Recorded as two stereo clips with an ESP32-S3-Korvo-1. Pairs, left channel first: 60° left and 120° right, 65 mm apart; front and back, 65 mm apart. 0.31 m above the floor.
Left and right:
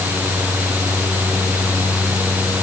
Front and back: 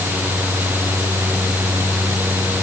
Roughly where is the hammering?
I don't hear hammering.